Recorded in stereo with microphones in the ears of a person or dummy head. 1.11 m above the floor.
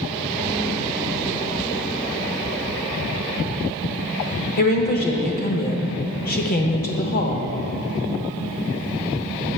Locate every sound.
4.6 s a woman speaking: 45° left (ahead or behind), 0.8 m